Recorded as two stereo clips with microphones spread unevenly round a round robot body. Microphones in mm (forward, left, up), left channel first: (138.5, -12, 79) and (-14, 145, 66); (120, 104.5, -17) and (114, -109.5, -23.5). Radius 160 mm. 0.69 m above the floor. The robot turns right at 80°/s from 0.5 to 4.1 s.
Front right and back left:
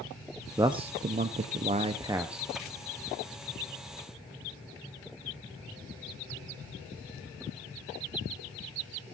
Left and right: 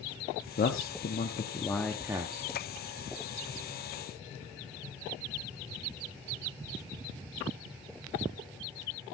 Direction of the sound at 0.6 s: 70° left.